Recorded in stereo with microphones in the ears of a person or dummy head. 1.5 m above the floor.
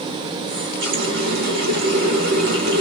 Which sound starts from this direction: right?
A running tap, at 0.5 s.